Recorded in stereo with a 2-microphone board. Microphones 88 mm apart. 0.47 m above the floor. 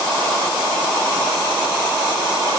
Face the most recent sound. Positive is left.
No sound to turn to.